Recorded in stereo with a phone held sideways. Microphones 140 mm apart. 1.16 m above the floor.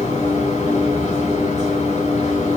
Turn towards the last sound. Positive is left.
turn(degrees=65)  # may be behind; listen again after turning